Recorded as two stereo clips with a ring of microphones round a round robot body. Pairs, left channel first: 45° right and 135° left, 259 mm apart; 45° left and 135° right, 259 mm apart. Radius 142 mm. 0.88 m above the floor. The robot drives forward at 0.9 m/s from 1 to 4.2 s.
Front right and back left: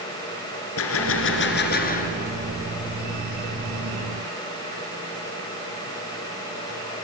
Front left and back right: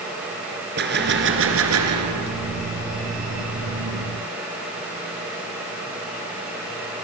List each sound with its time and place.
0.8 s a gunshot: 85° right, 2.5 m; by 2.4 s 110° right, 2.5 m